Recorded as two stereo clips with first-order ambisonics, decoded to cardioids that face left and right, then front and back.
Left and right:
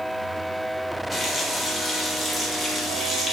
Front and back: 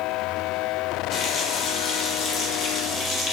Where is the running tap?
30° left, 0.6 m.